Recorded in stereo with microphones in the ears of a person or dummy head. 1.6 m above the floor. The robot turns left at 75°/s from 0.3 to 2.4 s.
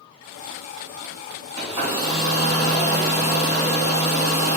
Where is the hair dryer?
45° right, 1.8 m; by 4.6 s 110° right, 1.8 m.